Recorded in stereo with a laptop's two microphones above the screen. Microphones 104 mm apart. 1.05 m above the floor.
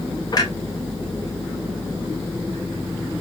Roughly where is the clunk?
Left.